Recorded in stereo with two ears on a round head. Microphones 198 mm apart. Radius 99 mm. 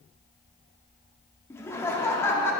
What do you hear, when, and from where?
1.5 s laughter: 15° left (ahead or behind), 1.1 m